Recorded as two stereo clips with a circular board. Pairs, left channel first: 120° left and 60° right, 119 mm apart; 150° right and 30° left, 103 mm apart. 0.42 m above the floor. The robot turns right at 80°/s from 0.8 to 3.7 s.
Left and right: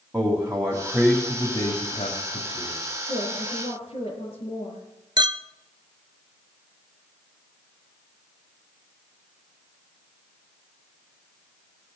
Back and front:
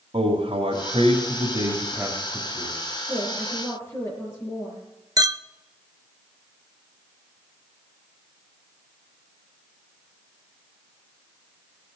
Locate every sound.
0.1 s a man speaking: 5° left, 2.5 m; by 2.8 s 165° left, 2.5 m
3.1 s a woman speaking: 95° left, 7 m; by 4.8 s 145° left, 7 m
5.2 s a clink: 15° right, 0.5 m